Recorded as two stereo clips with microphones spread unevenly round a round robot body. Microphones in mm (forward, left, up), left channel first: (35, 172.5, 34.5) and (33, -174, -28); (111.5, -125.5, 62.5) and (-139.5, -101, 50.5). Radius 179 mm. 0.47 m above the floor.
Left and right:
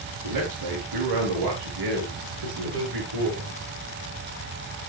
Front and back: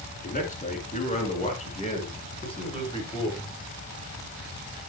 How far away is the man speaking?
About 7 m.